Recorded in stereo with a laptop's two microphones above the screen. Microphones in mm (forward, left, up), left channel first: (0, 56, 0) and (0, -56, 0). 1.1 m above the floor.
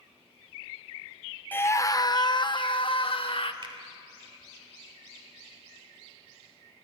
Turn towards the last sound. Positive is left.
turn(degrees=-45)  # may be behind; listen again after turning